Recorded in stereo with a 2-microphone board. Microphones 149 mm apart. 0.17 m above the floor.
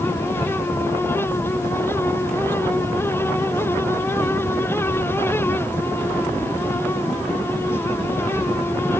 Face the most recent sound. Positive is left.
No sound to turn to.